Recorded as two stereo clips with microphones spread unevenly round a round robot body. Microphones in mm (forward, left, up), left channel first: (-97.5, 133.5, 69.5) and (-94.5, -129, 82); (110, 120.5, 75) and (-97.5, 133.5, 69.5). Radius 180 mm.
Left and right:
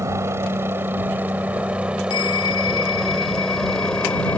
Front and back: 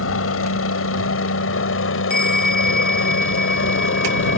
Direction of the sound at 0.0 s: 5° right.